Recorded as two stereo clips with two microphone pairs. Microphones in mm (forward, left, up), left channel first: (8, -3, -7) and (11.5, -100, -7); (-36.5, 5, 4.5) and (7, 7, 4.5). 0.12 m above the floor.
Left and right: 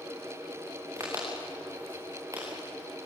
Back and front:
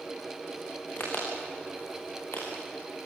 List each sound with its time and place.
1.0 s a crack: 145° right, 7 m